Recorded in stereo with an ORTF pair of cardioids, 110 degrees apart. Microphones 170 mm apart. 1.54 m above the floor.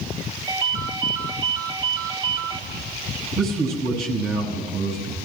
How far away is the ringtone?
About 1.9 m.